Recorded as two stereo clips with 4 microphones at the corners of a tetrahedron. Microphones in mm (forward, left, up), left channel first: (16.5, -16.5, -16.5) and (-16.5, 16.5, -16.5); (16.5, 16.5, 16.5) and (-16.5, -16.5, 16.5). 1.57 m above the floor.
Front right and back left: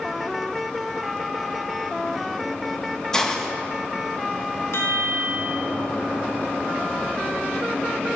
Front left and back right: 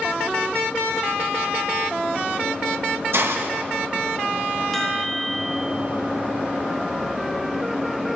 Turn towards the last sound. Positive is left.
turn(degrees=-35)